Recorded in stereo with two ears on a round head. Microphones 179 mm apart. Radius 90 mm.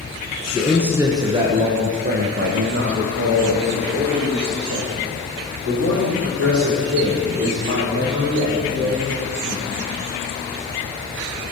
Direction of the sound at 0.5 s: Centre (ahead or behind).